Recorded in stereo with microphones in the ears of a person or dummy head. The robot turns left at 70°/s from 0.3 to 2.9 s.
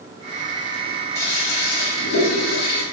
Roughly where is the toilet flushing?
Behind.